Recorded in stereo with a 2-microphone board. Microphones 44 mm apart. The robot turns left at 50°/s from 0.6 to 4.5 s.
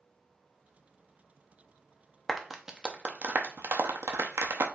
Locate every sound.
2.3 s a clap: 5° left (ahead or behind), 0.8 m; by 4.7 s 75° right (ahead or behind), 0.8 m